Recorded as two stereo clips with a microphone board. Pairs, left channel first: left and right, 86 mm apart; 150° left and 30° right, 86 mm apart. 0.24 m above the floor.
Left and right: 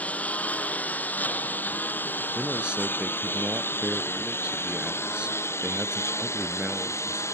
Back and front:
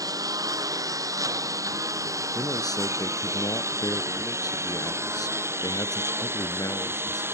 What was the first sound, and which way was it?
A lawn mower, 15° left.